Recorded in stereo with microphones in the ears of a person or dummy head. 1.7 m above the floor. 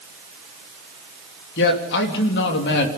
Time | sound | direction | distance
1.6 | a man speaking | 60° left (ahead or behind) | 3 m